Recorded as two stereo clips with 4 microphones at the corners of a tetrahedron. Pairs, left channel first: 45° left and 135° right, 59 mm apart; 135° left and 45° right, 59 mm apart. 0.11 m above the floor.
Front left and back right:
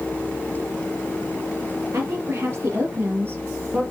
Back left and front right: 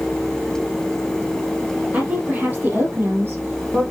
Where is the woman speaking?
105° right, 2.5 m; by 3.8 s 80° right, 3 m.